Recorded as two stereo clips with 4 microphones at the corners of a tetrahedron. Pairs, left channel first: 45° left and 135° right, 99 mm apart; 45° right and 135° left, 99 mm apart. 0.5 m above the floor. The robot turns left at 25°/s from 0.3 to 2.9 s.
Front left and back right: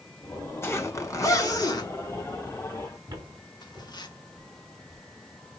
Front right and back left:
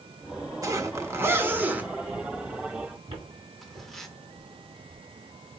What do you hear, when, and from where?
0.6 s a zipper: 100° left, 1.2 m; by 4.1 s 40° left, 1.2 m
3.1 s footsteps: 165° left, 2 m; by 5.6 s 160° left, 3.5 m